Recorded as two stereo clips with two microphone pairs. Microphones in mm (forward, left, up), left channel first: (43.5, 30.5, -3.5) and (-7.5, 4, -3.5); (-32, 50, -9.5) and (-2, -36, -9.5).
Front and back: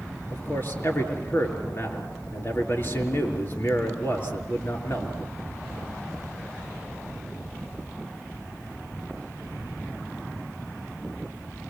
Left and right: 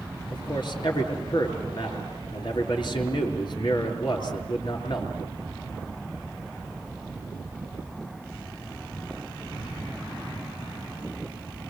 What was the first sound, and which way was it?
A man speaking, 75° left.